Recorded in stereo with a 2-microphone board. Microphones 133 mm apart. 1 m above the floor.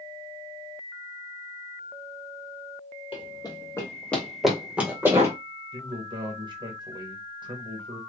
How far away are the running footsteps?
About 1.4 m.